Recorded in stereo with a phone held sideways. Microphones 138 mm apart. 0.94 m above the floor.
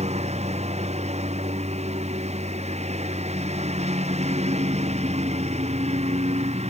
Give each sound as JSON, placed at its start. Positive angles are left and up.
{"t": 0.0, "sound": "a lawn mower", "side_deg": -50}